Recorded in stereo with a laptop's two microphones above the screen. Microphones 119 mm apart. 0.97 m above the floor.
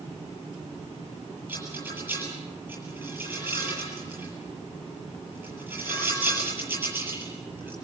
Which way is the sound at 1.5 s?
20° right (ahead or behind).